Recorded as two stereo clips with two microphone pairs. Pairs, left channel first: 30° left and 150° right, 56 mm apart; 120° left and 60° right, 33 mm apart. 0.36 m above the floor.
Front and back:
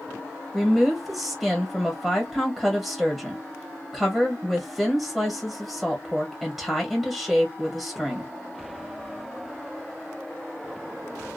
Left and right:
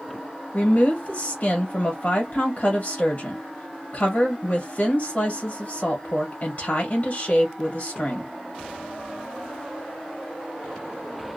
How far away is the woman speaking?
About 1.3 m.